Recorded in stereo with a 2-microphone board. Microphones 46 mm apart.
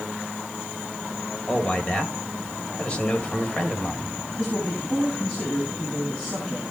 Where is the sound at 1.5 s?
20° left (ahead or behind), 2.5 m.